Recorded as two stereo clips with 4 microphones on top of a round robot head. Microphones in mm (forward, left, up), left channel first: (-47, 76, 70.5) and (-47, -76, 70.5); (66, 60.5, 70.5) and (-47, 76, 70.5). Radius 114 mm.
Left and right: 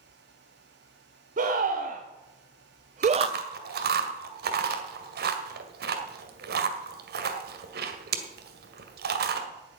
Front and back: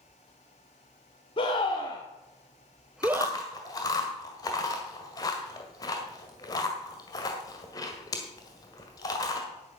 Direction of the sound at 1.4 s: 55° right.